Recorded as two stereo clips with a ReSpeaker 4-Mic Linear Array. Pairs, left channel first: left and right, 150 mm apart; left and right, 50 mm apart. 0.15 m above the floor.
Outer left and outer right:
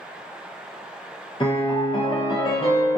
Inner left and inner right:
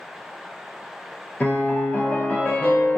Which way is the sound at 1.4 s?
35° left (ahead or behind).